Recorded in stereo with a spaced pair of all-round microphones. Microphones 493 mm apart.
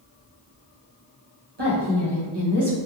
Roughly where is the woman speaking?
Right.